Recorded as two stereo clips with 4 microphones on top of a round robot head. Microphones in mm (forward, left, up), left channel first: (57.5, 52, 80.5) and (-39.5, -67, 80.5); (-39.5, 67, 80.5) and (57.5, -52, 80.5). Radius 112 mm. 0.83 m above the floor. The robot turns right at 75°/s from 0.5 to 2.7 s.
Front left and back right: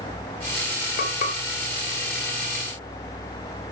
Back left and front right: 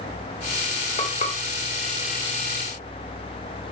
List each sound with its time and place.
1.0 s frying: 75° left, 2.5 m; by 1.4 s 105° left, 2.5 m